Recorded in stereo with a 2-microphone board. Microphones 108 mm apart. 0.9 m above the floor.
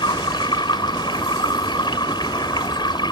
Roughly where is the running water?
Left.